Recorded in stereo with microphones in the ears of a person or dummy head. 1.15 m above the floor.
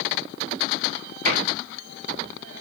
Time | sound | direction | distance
1.2 | a cupboard door | 35° right (ahead or behind) | 8.5 m